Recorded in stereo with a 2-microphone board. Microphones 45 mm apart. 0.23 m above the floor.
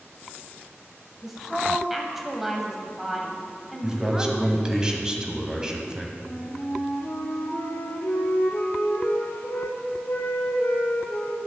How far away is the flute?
About 1.3 m.